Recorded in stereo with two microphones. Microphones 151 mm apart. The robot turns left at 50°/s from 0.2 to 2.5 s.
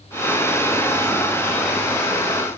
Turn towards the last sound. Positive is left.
No sound to turn to.